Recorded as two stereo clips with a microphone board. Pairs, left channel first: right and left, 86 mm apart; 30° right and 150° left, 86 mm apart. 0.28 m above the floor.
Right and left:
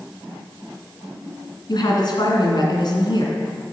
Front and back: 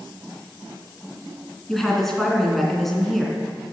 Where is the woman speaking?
115° right, 2.5 m.